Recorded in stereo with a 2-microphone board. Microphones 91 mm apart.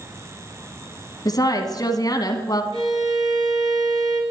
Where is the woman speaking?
45° left (ahead or behind), 1.4 m.